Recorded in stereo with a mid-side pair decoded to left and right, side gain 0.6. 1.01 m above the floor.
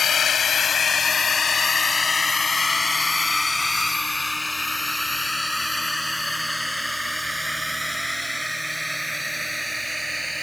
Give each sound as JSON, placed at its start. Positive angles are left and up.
{"t": 0.0, "sound": "a drone", "azimuth_deg": 40}